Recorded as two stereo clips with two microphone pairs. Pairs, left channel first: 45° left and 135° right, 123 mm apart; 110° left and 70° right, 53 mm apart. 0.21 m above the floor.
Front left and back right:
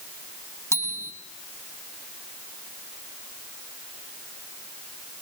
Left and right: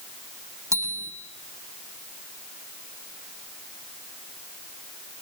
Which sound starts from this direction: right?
A bicycle bell, at 0.7 s.